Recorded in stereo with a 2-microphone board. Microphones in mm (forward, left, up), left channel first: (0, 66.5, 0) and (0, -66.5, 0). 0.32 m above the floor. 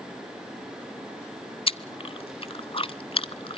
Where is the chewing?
45° left (ahead or behind), 0.7 m.